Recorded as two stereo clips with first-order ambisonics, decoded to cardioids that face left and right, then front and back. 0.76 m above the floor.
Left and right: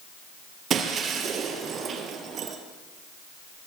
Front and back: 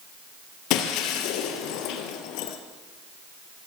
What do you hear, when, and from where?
0.7 s breaking glass: 30° right, 3.5 m